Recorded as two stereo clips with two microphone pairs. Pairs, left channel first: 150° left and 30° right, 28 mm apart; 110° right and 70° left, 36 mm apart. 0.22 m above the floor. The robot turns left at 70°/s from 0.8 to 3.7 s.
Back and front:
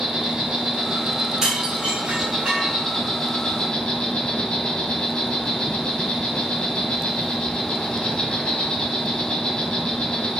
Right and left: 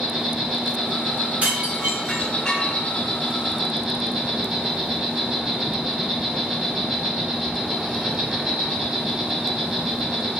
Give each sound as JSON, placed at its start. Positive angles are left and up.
{"t": 0.0, "sound": "an insect", "azimuth_deg": 5, "distance_m": 1.0}
{"t": 1.4, "sound": "dishes clattering", "azimuth_deg": 30, "distance_m": 1.5}